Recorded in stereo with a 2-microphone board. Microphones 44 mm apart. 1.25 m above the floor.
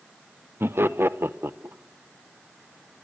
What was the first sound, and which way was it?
Laughter, 65° right (ahead or behind).